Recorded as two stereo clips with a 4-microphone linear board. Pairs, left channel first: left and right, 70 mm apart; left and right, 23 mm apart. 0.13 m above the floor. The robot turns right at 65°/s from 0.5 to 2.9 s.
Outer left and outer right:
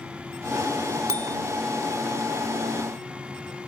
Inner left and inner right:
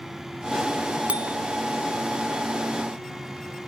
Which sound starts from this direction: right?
A bicycle bell, at 1.1 s.